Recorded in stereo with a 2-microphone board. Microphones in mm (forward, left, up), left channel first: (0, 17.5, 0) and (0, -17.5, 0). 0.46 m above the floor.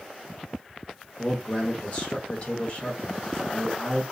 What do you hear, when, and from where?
1.2 s a man speaking: 30° left (ahead or behind), 1.2 m